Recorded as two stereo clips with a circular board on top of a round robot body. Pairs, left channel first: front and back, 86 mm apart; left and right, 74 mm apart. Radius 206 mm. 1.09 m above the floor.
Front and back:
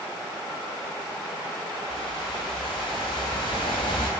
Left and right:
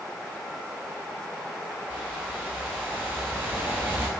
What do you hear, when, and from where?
1.9 s a whoosh: 25° right, 0.6 m